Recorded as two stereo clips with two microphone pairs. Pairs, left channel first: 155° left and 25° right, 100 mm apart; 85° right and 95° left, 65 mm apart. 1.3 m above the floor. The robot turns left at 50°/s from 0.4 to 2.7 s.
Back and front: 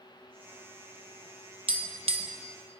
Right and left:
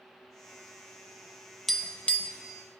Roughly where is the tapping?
Ahead.